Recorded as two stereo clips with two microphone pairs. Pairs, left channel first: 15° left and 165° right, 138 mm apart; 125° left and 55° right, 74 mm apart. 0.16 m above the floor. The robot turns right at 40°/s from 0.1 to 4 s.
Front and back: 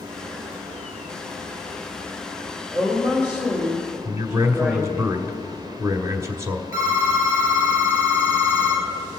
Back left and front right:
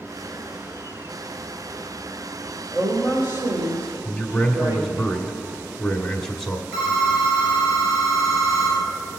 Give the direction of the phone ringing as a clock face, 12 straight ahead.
3 o'clock.